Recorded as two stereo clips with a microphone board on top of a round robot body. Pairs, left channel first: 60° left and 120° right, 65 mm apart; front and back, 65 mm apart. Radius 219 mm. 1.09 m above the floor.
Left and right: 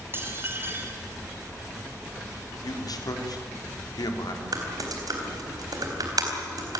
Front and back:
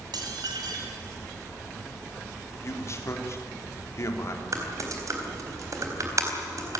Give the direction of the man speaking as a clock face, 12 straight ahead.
11 o'clock.